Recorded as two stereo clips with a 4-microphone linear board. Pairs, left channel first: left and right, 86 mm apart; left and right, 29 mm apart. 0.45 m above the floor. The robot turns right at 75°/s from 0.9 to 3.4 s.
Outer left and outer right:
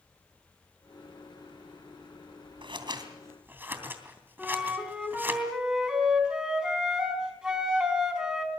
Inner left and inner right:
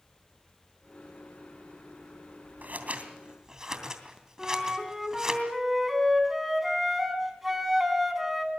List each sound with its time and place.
2.6 s scissors: 75° right (ahead or behind), 3 m; by 5.4 s 25° right (ahead or behind), 3 m
4.4 s a flute: 10° right (ahead or behind), 3.5 m